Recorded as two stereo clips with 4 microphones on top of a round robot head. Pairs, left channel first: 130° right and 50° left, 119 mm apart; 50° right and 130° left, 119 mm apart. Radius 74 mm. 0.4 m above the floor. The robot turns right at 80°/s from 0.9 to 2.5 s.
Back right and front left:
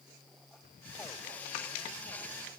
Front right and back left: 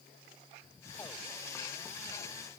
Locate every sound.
Only background noise.